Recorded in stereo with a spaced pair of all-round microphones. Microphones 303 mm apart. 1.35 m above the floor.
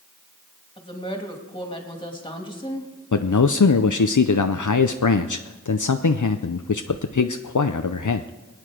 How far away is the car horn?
No car horn in this recording.